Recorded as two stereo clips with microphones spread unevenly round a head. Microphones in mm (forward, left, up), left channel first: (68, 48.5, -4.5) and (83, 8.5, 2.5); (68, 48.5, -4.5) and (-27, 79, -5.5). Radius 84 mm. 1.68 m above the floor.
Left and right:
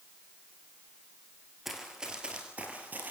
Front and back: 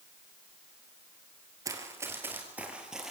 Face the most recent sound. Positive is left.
turn(degrees=-110)